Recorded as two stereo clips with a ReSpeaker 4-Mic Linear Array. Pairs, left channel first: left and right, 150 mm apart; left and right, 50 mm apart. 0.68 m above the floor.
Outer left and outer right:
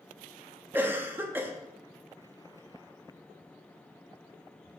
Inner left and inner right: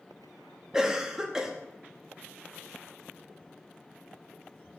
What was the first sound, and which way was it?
A cough, 15° right (ahead or behind).